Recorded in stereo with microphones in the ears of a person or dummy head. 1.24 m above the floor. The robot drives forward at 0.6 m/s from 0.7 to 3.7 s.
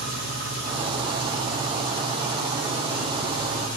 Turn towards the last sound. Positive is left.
turn(degrees=-45)  # may be behind; listen again after turning